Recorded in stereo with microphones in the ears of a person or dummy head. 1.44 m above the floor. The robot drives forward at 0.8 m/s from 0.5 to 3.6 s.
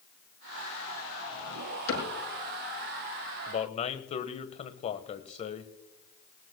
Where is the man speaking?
45° left (ahead or behind), 1.2 m; by 5.7 s 40° left (ahead or behind), 1.3 m.